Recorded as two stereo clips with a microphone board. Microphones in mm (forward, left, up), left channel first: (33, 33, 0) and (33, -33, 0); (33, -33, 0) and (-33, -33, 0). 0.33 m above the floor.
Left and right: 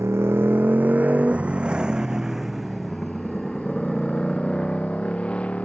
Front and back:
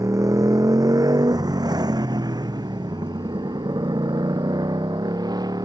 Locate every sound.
0.0 s a motorcycle: 140° right; by 5.7 s 165° left